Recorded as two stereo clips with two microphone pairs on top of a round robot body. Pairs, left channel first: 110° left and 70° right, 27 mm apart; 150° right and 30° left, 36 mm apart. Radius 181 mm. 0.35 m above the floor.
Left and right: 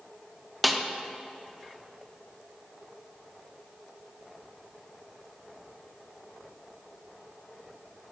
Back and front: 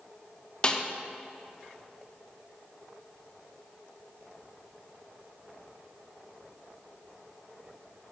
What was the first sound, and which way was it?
A snare drum, 160° right.